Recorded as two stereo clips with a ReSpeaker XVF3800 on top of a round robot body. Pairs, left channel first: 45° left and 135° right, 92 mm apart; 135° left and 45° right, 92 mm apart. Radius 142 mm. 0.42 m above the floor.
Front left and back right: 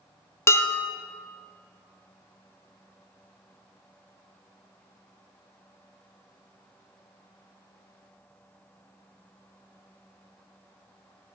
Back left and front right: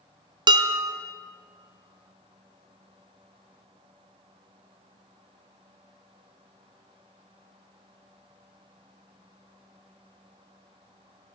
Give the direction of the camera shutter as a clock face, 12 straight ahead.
No camera shutter in this recording.